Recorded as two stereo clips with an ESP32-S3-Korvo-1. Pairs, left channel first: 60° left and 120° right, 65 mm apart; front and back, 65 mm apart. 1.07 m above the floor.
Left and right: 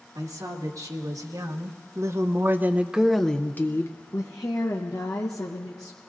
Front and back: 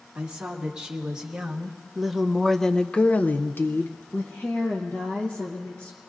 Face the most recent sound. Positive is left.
turn(degrees=60)